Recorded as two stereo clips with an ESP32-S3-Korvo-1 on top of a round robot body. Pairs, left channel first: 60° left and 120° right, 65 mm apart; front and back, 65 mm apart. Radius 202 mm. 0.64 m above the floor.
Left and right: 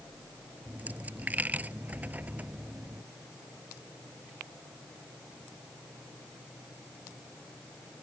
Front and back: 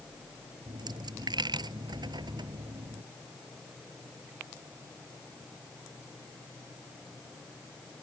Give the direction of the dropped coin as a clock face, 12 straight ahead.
6 o'clock.